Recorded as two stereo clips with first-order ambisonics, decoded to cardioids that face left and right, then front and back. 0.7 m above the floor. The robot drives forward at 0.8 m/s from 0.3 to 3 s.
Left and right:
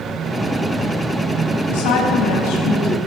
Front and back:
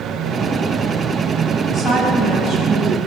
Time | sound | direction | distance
1.7 | a woman speaking | 75° left | 5 m